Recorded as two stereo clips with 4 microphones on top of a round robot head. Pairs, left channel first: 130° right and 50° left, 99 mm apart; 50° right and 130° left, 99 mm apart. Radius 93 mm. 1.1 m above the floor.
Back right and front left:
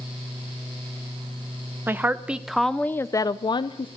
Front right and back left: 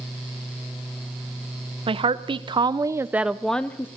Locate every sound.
1.9 s a woman speaking: 115° left, 0.8 m; by 3.9 s 115° right, 0.6 m